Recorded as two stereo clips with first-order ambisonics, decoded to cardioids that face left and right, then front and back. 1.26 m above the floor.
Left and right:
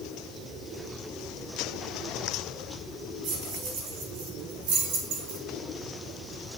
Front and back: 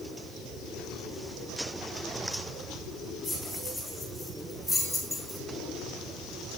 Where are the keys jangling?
85° right, 3.5 m.